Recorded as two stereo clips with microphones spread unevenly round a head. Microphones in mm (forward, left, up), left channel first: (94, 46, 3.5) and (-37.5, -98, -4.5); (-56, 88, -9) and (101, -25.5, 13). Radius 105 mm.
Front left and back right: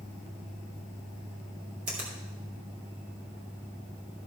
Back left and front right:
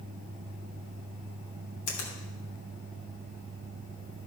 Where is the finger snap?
170° left, 3 m.